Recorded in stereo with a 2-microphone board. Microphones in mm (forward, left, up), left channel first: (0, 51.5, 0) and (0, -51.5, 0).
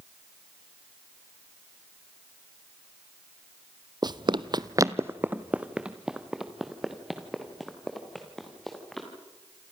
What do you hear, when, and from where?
4.0 s running footsteps: 45° right (ahead or behind), 0.7 m; by 9.1 s centre (ahead or behind), 4.5 m